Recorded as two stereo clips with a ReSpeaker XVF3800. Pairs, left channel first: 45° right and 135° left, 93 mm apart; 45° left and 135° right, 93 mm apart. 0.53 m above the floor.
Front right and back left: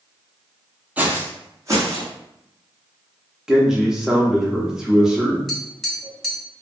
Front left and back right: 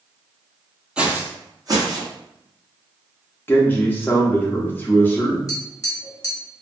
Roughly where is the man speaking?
Ahead left.